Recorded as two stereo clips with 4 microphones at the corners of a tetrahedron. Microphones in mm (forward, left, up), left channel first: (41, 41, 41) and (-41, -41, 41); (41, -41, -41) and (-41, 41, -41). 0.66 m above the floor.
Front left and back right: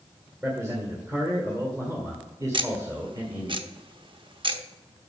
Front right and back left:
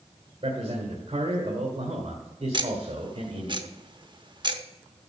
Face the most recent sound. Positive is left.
turn(degrees=180)